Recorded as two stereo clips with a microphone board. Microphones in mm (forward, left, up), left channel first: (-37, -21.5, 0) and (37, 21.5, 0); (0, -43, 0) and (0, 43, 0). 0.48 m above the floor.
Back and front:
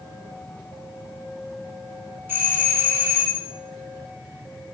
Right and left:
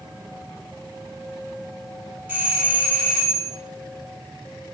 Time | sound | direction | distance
2.3 | a doorbell | 55° left | 1.2 m